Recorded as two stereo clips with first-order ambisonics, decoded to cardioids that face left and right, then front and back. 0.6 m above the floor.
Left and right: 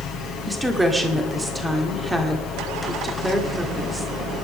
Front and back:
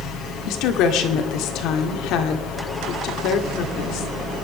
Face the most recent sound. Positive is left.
turn(degrees=-10)